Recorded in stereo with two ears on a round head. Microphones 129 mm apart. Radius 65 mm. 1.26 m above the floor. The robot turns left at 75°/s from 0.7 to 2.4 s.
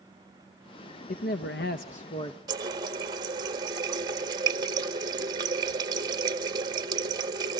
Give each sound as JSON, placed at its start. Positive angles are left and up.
{"t": 1.1, "sound": "a man speaking", "azimuth_deg": 120, "distance_m": 0.9}
{"t": 2.5, "sound": "a running tap", "side_deg": -25, "distance_m": 1.5}